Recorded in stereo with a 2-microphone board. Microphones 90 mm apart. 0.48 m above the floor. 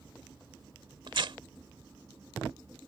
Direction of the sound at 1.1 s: 65° right (ahead or behind).